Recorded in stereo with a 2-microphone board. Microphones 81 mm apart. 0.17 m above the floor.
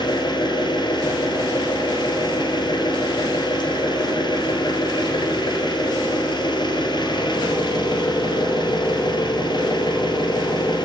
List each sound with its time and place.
0.0 s an engine running: 70° left (ahead or behind), 2 m